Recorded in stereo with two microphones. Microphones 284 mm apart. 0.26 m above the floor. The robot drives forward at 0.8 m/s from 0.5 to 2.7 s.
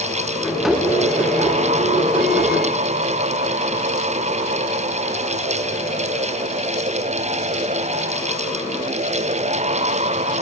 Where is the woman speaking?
No woman speaking in this recording.